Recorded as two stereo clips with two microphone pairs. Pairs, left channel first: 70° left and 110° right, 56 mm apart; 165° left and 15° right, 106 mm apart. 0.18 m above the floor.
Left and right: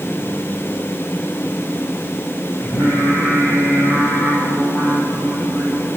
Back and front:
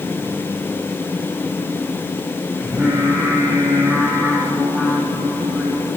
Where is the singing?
55° left, 9 m.